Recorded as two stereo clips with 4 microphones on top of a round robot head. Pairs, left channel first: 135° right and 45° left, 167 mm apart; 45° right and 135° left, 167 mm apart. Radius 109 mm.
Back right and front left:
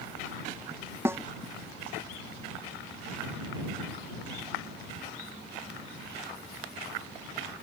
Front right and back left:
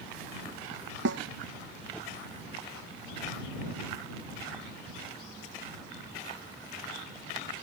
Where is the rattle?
No rattle in this recording.